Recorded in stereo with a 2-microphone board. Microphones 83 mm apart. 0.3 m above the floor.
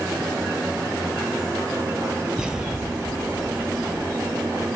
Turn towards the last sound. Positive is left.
turn(degrees=-10)  # may be behind; listen again after turning